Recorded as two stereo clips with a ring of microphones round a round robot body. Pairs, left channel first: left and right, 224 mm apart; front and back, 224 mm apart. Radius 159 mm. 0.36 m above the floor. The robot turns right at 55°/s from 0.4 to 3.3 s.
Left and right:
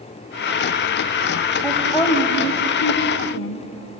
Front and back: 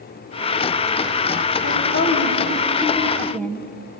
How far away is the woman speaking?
About 2.5 m.